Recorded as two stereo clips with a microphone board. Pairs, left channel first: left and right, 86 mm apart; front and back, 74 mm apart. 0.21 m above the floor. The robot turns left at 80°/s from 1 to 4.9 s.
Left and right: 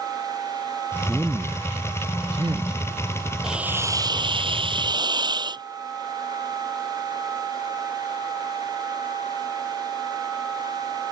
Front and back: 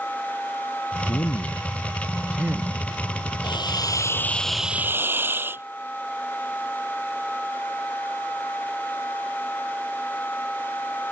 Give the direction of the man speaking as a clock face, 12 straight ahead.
12 o'clock.